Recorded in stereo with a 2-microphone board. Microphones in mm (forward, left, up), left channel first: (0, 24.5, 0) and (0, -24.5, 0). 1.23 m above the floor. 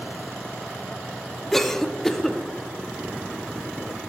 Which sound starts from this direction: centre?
A cough, at 1.5 s.